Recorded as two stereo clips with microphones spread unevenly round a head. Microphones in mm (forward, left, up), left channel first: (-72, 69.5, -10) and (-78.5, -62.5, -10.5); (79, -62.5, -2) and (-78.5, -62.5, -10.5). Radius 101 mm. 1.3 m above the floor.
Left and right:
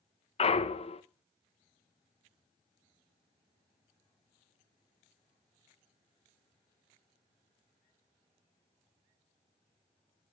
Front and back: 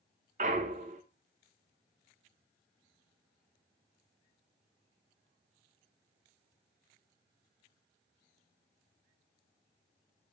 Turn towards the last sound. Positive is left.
turn(degrees=125)